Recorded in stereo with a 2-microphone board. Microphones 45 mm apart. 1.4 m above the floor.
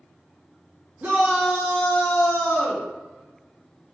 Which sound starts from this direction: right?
A shout, at 1.0 s.